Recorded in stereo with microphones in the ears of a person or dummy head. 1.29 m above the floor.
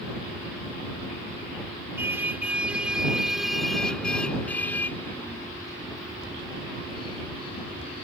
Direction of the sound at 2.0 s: 10° right (ahead or behind).